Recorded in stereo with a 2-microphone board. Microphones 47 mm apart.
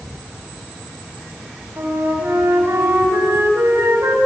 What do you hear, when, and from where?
1.8 s a flute: 70° right (ahead or behind), 5 m